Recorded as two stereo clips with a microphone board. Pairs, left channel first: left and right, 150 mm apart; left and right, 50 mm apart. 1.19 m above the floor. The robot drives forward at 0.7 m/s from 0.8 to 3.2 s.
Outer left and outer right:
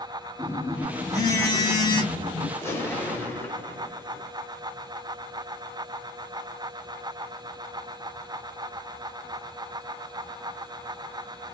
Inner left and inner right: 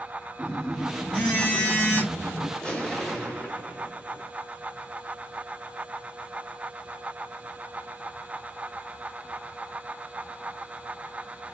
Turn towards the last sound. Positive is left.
turn(degrees=15)  # may be behind; listen again after turning